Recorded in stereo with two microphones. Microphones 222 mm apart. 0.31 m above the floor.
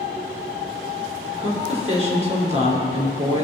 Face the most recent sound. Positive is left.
turn(degrees=-30)  # may be behind; listen again after turning